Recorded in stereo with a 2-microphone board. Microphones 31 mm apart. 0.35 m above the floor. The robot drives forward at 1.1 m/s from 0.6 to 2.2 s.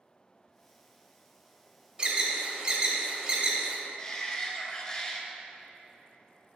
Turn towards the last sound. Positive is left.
turn(degrees=20)  # may be behind; listen again after turning